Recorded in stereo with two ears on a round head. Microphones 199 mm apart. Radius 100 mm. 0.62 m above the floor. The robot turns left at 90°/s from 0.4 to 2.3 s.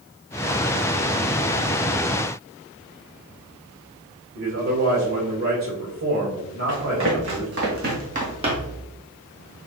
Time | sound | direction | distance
4.3 | a man speaking | 65° right (ahead or behind) | 2 m
6.7 | running footsteps | 65° right (ahead or behind) | 3 m